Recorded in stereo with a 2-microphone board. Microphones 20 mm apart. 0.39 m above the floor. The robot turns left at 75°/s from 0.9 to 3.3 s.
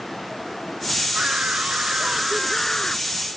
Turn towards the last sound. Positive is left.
turn(degrees=130)